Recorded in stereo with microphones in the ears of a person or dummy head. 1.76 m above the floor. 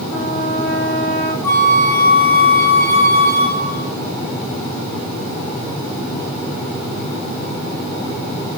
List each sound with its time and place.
0.1 s a trumpet: 80° left, 4.5 m
1.4 s a flute: 15° left (ahead or behind), 2.5 m